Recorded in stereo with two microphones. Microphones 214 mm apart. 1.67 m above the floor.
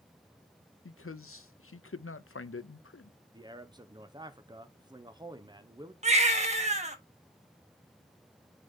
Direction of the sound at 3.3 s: 20° right (ahead or behind).